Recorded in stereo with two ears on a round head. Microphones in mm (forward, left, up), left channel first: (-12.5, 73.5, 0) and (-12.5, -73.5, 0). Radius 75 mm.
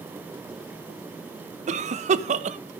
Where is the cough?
45° right (ahead or behind), 1.0 m.